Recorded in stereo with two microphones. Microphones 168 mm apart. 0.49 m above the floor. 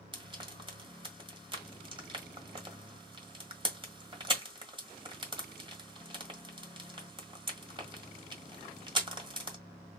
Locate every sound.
0.1 s frying: 30° right (ahead or behind), 1.6 m